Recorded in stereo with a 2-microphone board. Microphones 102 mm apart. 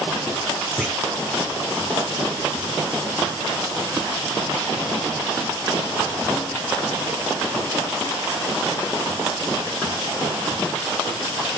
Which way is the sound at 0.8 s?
Centre (ahead or behind).